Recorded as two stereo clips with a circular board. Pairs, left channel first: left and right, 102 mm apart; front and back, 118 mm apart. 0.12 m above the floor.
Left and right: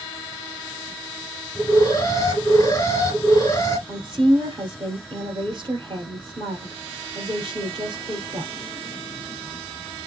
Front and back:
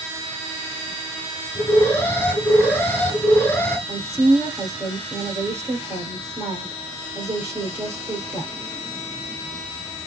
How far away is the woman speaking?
About 2.5 m.